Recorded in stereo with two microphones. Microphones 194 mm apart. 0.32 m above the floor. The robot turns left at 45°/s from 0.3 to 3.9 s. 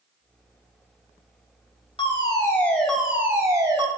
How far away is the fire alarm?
About 3 m.